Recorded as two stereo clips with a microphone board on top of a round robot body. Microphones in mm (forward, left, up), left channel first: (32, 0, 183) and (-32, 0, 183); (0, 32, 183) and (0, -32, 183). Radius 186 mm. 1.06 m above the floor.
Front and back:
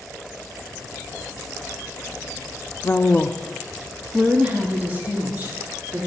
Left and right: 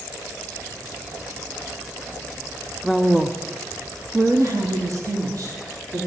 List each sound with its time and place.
2.8 s a woman speaking: straight ahead, 0.7 m; by 6.1 s 120° right, 2 m